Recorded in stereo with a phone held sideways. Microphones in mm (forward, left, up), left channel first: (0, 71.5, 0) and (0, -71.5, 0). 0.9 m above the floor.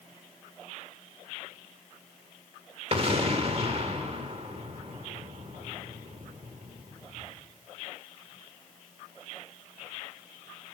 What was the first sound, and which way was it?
An explosion, 45° right (ahead or behind).